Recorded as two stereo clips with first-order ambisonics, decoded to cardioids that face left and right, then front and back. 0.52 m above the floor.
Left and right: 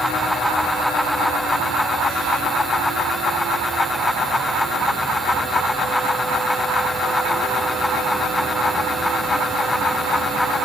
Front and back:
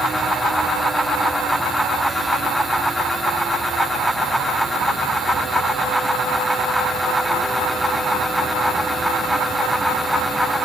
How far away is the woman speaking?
I don't hear a woman speaking.